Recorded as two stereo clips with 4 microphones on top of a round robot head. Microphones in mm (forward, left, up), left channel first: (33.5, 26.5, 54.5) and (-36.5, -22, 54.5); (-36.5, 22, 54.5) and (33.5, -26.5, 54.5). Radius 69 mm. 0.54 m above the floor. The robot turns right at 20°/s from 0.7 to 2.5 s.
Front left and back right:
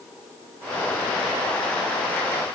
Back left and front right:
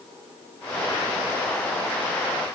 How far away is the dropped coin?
No dropped coin in this recording.